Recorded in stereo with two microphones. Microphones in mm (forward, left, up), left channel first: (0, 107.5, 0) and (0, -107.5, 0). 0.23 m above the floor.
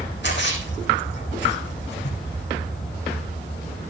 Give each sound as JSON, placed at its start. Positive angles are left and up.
{"t": 0.2, "sound": "a splash", "side_deg": 60, "distance_m": 7.5}